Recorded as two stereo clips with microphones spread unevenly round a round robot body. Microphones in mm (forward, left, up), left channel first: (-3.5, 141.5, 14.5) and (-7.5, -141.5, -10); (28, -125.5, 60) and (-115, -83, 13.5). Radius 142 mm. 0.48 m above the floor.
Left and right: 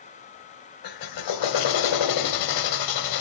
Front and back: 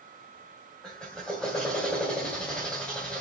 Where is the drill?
75° left, 1.6 m.